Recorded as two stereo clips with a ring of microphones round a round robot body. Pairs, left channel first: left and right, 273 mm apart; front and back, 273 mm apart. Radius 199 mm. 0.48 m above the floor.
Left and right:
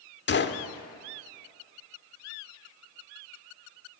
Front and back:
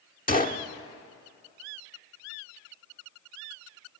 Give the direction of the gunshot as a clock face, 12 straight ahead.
10 o'clock.